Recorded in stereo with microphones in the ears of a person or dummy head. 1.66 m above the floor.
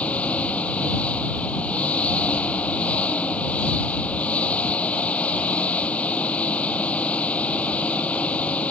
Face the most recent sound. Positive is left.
turn(degrees=10)  # may be behind; listen again after turning